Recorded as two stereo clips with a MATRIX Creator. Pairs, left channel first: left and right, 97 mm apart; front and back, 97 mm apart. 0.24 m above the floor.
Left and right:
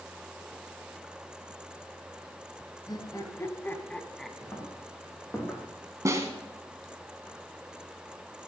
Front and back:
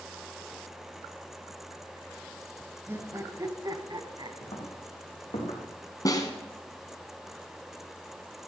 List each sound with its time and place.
2.9 s laughter: 120° left, 1.6 m; by 4.3 s straight behind, 1.5 m
4.4 s footsteps: 35° left, 4.5 m; by 5.6 s 20° left, 5.5 m
6.0 s a snare drum: 40° right, 1.7 m